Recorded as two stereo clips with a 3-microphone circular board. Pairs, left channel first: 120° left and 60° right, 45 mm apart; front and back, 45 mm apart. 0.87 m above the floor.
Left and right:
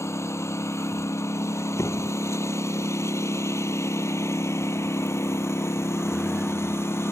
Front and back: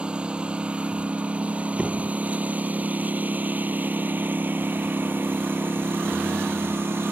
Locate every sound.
0.0 s a lawn mower: 110° left; by 7.1 s 145° left
1.8 s a door slam: 120° left